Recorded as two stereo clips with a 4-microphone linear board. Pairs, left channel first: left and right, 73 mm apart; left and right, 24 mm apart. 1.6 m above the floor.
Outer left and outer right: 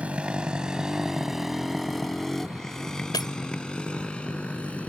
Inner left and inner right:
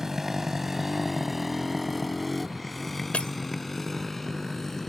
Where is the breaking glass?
65° left (ahead or behind).